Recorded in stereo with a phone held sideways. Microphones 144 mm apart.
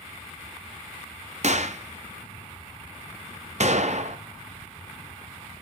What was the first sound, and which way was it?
A gunshot, 60° right (ahead or behind).